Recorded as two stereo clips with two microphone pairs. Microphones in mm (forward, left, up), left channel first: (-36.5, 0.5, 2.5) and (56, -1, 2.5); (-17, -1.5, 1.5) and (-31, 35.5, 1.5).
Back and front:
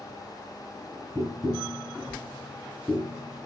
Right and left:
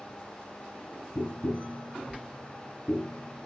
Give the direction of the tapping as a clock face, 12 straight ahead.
3 o'clock.